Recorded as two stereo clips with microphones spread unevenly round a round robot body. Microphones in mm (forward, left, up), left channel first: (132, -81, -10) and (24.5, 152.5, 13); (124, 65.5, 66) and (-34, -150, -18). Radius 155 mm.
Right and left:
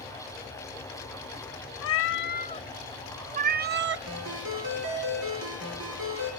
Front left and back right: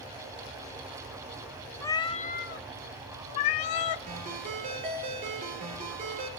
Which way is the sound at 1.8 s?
30° right.